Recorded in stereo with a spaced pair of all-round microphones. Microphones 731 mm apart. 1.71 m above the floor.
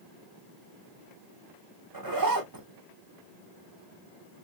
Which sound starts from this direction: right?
A zipper, at 1.9 s.